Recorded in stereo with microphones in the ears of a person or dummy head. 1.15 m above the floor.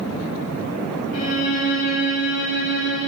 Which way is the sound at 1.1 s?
60° left (ahead or behind).